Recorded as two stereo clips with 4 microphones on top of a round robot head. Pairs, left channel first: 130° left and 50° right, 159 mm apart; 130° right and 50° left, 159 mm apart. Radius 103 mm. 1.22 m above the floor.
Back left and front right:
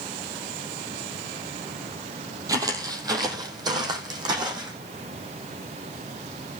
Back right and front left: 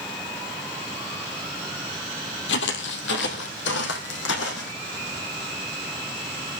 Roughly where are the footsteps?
Behind right.